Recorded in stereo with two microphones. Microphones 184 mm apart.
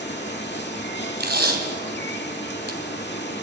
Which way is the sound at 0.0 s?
65° left (ahead or behind).